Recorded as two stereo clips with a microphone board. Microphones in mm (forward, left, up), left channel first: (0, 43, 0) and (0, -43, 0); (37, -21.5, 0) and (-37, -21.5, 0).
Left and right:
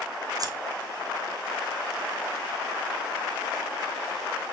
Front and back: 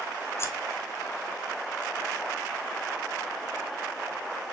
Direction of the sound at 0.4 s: 50° right.